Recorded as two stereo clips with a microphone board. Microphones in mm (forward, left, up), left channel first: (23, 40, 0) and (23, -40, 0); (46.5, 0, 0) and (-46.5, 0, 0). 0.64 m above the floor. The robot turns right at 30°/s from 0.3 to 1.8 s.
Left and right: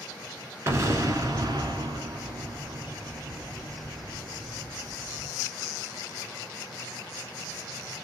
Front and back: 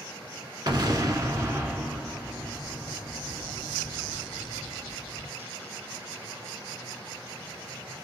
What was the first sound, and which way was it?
An explosion, 145° right.